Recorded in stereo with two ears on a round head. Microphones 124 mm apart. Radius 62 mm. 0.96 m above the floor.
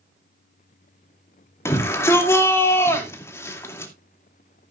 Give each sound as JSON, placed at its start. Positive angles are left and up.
{"t": 1.6, "sound": "a shout", "side_deg": 20, "distance_m": 2.5}